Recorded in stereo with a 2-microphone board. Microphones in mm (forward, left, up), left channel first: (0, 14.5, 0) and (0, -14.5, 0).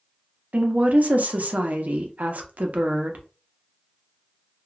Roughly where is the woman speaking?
Right.